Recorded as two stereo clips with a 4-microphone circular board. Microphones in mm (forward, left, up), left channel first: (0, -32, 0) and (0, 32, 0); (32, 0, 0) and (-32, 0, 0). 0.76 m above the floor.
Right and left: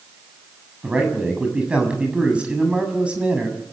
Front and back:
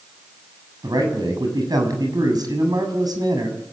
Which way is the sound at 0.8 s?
165° left.